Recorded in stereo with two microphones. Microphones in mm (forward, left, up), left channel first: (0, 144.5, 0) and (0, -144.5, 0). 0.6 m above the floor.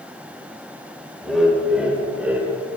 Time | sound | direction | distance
1.2 | laughter | centre (ahead or behind) | 3 m